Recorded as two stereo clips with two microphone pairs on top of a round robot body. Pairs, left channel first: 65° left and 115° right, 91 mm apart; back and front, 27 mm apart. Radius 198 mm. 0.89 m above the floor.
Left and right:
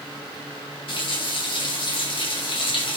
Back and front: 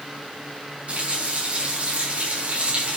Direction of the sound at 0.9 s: 40° left.